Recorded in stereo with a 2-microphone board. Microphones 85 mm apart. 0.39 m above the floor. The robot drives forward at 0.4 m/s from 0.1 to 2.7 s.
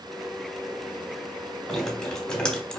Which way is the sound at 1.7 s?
5° left (ahead or behind).